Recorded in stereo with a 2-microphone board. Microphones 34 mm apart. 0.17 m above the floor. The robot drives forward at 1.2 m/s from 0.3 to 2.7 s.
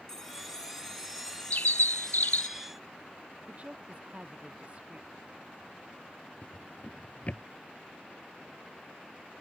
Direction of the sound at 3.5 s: 35° right (ahead or behind).